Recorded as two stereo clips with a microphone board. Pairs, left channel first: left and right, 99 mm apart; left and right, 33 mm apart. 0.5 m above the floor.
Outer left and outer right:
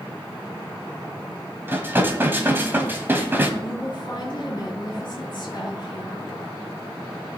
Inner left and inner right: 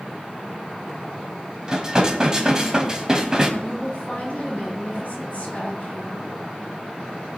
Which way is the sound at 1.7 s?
20° right (ahead or behind).